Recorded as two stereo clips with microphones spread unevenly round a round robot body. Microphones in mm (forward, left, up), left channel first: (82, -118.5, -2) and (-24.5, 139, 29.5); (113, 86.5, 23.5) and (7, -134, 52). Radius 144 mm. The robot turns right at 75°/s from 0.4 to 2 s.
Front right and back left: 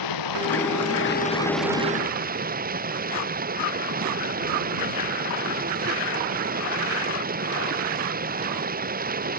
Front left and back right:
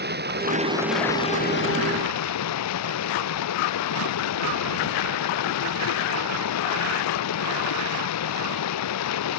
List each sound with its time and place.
0.0 s running water: 65° right; by 9.4 s 55° left